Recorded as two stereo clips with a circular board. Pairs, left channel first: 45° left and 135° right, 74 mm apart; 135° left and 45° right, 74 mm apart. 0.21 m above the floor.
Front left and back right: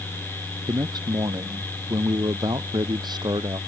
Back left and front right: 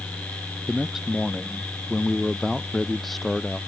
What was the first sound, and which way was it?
A man speaking, 130° right.